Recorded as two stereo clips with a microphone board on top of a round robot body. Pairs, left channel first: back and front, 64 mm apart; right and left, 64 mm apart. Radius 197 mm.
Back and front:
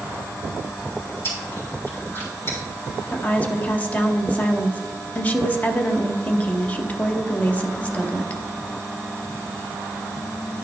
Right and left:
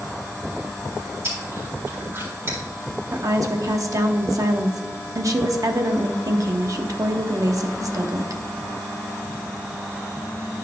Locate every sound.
1.2 s chewing: 135° left, 3.5 m
3.1 s a woman speaking: 115° left, 0.9 m